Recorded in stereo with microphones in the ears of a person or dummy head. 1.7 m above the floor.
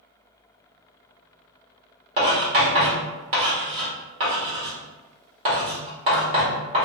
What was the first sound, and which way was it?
Writing, 35° right (ahead or behind).